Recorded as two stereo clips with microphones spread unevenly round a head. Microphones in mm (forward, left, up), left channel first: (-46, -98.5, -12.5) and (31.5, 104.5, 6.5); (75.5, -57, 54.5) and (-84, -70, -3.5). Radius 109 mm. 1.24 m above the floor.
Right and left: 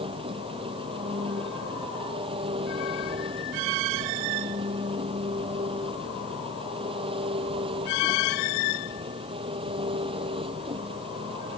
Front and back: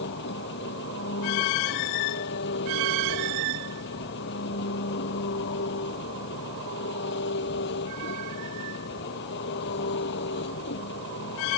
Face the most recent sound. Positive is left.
turn(degrees=0)